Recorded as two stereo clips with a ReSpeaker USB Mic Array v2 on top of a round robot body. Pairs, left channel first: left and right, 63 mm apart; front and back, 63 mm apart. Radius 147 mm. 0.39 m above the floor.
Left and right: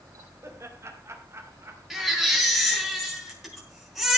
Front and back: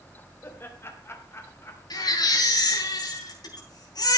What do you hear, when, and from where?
0.4 s laughter: 50° right, 3.5 m; by 2.9 s 40° right, 4.5 m
1.9 s a baby crying: 5° right, 5.5 m